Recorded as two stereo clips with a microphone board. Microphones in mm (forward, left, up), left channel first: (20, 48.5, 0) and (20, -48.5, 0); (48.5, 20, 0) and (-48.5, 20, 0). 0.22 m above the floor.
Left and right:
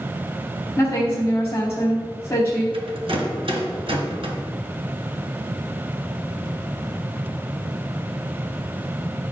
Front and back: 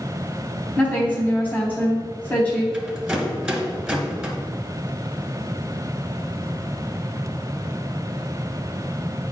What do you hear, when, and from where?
0.8 s a woman speaking: 60° left, 1.4 m
2.7 s a rattle: 95° right, 1.4 m